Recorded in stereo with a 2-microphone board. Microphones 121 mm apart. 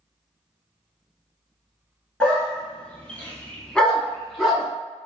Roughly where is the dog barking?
Centre.